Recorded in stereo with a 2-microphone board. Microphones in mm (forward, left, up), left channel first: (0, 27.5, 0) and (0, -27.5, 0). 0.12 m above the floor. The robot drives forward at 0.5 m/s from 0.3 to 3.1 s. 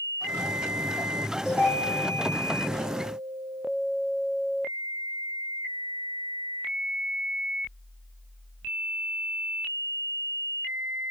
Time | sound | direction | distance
1.4 | a ringtone | 35° right (ahead or behind) | 1.2 m